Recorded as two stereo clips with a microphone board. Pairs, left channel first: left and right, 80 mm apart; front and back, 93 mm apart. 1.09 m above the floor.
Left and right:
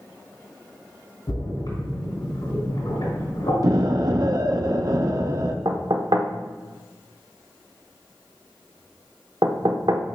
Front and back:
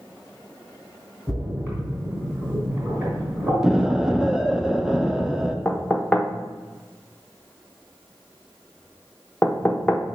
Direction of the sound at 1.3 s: 110° left.